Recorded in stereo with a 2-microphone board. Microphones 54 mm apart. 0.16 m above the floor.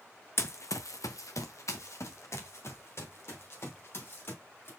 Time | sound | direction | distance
0.4 | running footsteps | 50° left (ahead or behind) | 0.7 m